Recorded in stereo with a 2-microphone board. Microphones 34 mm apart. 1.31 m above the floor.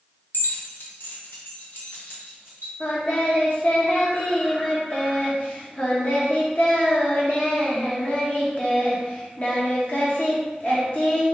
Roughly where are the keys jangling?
Left.